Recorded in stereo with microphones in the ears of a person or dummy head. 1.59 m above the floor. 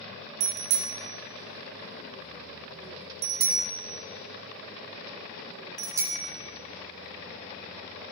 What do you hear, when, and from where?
0.4 s a bicycle bell: 60° right (ahead or behind), 2 m; by 8.1 s 5° right (ahead or behind), 4 m